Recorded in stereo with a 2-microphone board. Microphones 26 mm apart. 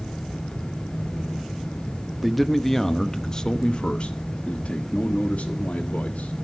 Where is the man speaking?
5° right (ahead or behind), 1.0 m; by 6.3 s 75° left (ahead or behind), 2 m.